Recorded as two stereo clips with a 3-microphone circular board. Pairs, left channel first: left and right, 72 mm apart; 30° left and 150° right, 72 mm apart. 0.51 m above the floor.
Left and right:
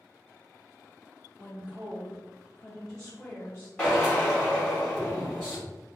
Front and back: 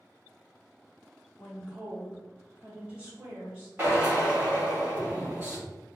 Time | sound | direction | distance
1.4 | a woman speaking | 75° right | 1.5 m
3.8 | a drill | 155° left | 1.7 m